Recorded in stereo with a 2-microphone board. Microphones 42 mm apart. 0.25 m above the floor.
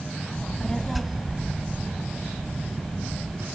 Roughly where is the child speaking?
Left.